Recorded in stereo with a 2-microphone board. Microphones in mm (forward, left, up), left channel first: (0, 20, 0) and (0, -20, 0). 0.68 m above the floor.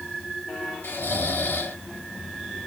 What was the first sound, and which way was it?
Snoring, 65° left (ahead or behind).